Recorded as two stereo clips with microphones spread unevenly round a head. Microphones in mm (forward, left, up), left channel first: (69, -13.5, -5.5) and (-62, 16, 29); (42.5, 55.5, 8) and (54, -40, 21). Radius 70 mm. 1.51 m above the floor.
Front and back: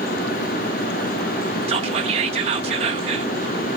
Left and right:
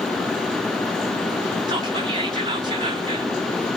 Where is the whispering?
140° right, 0.8 m.